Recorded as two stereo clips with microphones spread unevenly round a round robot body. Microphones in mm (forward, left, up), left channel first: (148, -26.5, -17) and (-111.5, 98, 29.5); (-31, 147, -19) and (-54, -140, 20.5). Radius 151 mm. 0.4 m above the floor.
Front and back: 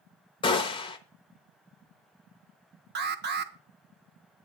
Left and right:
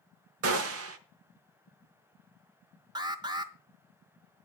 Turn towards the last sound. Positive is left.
turn(degrees=-170)